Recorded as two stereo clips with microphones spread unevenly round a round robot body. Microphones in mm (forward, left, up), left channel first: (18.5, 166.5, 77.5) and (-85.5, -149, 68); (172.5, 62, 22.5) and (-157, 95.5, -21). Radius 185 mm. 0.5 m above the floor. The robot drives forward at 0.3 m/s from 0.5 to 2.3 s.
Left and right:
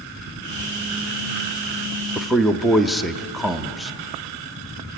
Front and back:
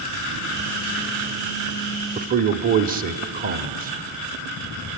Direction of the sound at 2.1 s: 165° left.